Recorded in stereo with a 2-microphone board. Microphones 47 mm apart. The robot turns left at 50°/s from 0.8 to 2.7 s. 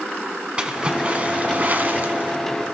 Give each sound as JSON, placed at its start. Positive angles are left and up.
{"t": 0.6, "sound": "a splash", "azimuth_deg": -40, "distance_m": 1.1}